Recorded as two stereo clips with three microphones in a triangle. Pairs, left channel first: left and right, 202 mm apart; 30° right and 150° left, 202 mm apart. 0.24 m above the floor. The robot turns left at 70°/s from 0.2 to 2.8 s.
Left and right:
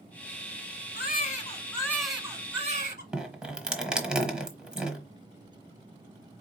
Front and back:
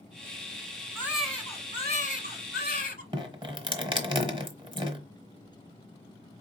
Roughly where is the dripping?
Behind.